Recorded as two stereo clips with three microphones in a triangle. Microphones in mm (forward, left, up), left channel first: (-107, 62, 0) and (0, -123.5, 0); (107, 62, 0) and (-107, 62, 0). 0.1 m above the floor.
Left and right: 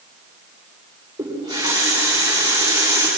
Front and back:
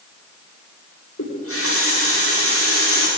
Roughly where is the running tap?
Ahead.